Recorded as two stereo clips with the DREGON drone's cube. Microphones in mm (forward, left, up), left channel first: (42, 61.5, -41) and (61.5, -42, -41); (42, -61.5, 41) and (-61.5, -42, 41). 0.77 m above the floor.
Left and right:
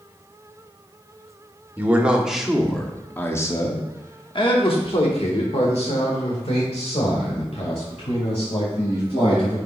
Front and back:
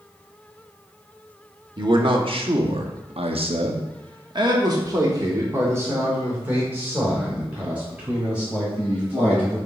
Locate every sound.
1.8 s a man speaking: 150° right, 1.3 m; by 9.6 s 90° left, 3.5 m